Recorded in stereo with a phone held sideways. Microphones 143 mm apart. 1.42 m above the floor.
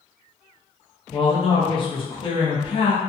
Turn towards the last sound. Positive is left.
turn(degrees=35)  # may be behind; listen again after turning